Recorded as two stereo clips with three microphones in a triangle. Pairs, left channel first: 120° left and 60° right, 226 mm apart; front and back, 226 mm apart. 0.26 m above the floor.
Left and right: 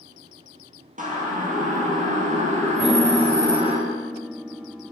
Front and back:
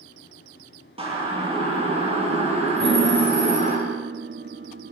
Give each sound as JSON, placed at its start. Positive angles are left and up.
{"t": 1.0, "sound": "a siren", "azimuth_deg": -115, "distance_m": 7.5}
{"t": 2.8, "sound": "a piano", "azimuth_deg": -145, "distance_m": 1.7}